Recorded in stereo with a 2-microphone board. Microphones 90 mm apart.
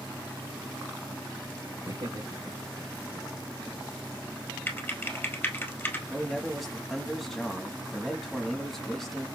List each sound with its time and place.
1.9 s laughter: 75° right (ahead or behind), 3 m; by 3.7 s 55° right (ahead or behind), 2.5 m
4.7 s typing on a keyboard: 25° left (ahead or behind), 1.6 m
6.1 s a man speaking: centre (ahead or behind), 1.1 m